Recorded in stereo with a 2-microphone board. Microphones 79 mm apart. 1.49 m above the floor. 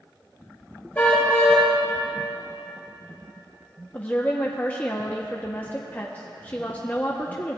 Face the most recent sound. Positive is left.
turn(degrees=25)  # may be behind; listen again after turning